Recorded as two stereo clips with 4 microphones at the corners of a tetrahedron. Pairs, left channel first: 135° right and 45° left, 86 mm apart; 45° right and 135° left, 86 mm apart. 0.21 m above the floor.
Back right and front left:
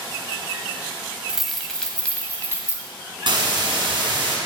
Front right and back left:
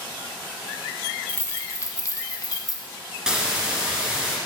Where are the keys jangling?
30° right, 0.7 m; by 2.8 s 75° right, 1.2 m.